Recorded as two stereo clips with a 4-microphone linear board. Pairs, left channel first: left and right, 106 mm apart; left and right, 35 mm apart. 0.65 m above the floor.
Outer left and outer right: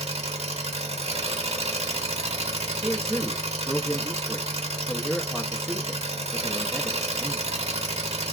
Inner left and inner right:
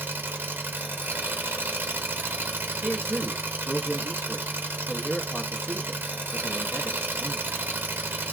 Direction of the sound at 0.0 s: 80° right.